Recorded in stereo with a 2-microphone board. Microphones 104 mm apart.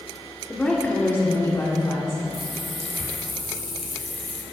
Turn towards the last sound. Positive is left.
turn(degrees=70)  # may be behind; listen again after turning